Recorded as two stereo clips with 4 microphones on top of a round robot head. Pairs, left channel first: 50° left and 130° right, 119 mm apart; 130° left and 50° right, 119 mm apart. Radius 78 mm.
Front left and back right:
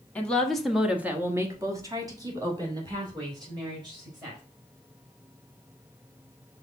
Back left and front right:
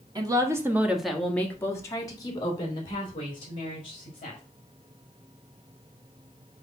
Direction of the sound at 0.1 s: 25° right.